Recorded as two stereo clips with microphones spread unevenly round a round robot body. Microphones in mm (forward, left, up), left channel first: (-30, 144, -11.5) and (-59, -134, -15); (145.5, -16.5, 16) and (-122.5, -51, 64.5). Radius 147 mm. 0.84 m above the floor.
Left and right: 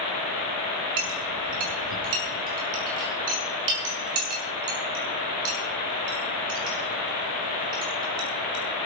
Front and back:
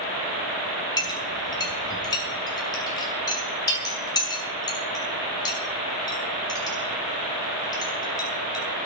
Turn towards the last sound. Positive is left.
turn(degrees=-70)